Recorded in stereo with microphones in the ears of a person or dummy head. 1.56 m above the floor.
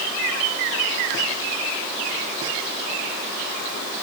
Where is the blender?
I don't hear a blender.